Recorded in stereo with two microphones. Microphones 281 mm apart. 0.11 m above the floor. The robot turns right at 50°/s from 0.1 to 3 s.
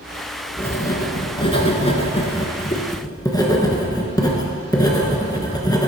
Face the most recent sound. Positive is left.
turn(degrees=15)  # may be behind; listen again after turning